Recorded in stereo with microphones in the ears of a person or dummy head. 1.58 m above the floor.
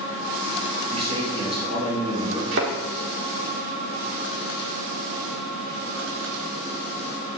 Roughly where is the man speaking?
Right.